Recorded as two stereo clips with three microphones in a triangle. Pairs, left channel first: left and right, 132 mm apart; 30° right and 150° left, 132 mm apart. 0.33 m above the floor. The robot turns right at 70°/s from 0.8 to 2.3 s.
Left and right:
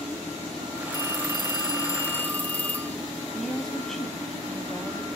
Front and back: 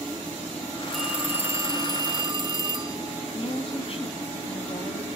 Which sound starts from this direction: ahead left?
A phone ringing, at 0.9 s.